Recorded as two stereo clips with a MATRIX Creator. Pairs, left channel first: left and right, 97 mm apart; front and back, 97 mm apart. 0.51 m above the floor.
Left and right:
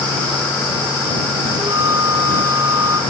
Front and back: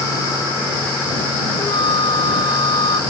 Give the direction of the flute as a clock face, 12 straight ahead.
1 o'clock.